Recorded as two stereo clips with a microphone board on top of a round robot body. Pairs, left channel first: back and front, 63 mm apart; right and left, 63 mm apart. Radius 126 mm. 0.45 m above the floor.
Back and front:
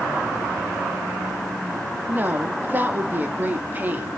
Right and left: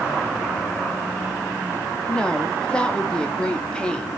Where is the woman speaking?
25° right, 1.2 m.